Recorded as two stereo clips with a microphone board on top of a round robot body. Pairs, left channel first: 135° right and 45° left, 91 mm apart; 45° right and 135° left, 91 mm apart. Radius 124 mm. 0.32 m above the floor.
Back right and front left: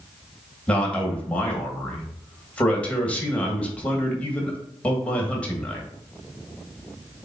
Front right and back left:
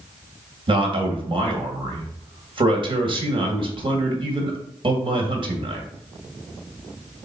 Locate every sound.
0.7 s a man speaking: 150° left, 2.5 m